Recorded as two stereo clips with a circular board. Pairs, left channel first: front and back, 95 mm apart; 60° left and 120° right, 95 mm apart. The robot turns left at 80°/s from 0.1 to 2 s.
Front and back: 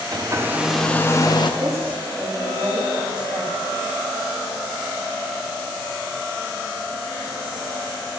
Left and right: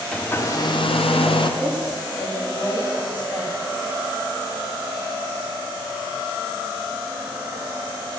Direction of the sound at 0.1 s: 140° left.